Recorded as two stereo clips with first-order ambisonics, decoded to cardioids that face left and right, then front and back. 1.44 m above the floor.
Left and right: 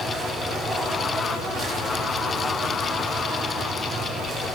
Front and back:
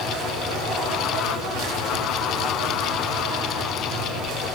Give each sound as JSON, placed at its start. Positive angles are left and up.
{"t": 0.0, "sound": "an insect", "azimuth_deg": -150, "distance_m": 1.8}